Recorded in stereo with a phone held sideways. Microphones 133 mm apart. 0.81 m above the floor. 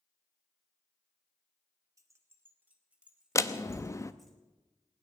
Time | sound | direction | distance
2.0 | keys jangling | 25° right (ahead or behind) | 1.5 m
3.4 | a door slam | 25° left (ahead or behind) | 0.6 m